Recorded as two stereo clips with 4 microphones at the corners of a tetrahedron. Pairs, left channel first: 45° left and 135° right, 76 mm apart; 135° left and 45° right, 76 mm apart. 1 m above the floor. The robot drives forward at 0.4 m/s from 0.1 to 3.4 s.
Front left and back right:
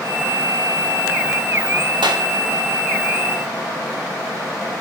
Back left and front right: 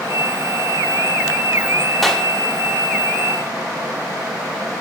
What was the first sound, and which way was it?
A clap, 140° right.